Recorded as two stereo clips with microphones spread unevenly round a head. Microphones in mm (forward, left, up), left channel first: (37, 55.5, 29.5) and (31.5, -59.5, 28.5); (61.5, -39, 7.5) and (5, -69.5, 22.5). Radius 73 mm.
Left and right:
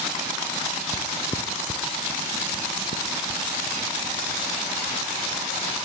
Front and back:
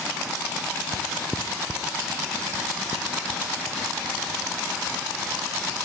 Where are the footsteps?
165° left, 2.5 m; by 5.7 s 50° left, 6 m.